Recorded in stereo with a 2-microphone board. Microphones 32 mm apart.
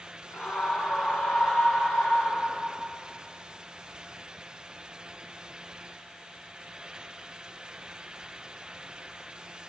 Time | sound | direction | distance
0.3 | a scream | 80° left | 8 m